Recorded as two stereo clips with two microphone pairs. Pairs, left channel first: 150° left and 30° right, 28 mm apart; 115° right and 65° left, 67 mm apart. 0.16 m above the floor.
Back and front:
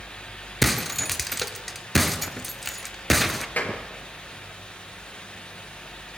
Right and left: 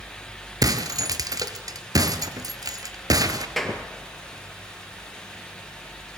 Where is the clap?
155° left, 3.5 m.